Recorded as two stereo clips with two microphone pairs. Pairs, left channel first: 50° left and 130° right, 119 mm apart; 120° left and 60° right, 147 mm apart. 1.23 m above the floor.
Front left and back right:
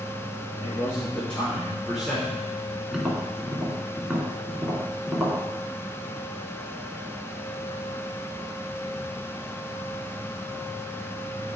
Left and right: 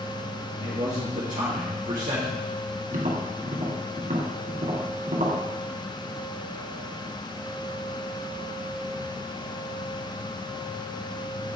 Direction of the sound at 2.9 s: 45° right.